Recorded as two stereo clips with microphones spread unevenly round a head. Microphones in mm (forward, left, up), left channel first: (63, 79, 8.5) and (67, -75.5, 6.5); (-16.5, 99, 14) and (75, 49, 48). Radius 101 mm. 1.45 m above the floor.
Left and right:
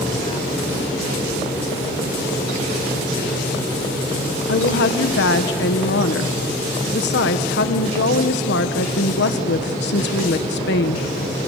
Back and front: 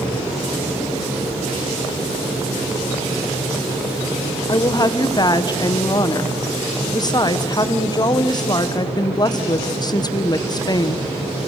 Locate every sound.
4.5 s a woman speaking: 105° left, 1.3 m